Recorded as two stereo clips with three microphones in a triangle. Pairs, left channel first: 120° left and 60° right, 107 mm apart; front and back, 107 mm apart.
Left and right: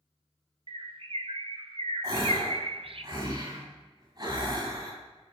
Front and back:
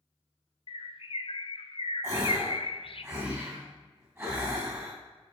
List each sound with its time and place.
0.7 s a bird: 30° right, 0.5 m
2.0 s a gasp: 115° right, 2.5 m